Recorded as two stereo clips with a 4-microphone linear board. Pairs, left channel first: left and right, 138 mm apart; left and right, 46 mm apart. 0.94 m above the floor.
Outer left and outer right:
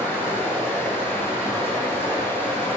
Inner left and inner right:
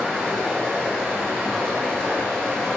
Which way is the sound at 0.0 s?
15° left (ahead or behind).